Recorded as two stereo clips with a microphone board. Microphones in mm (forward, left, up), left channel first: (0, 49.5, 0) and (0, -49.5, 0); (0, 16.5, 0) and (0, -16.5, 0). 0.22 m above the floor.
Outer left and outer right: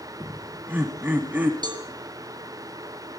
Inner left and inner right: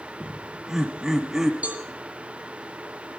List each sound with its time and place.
0.2 s laughter: 15° right (ahead or behind), 1.4 m
1.6 s a cowbell: 50° right (ahead or behind), 2.5 m